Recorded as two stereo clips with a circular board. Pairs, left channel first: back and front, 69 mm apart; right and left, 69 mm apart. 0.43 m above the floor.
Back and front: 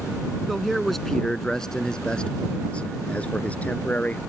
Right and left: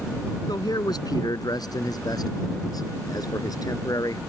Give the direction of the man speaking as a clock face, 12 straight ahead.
3 o'clock.